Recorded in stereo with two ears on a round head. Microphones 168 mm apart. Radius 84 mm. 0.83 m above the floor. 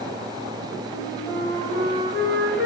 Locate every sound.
0.9 s a flute: 15° left (ahead or behind), 3.5 m